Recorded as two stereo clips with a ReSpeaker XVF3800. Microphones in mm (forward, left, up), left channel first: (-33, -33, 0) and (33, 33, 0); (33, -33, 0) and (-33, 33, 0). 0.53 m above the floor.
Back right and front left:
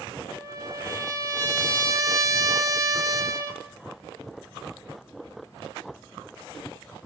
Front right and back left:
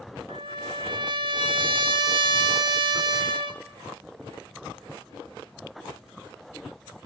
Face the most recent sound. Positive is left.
turn(degrees=100)